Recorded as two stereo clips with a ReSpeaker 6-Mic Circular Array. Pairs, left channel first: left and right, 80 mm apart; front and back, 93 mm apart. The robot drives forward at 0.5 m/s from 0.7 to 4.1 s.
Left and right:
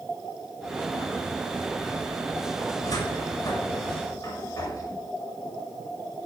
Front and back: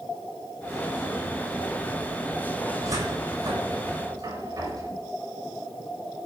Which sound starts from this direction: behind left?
A cupboard door, at 2.8 s.